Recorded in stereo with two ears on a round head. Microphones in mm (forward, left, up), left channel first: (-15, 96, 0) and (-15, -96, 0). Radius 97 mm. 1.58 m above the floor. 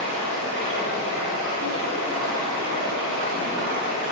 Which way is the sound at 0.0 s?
60° right (ahead or behind).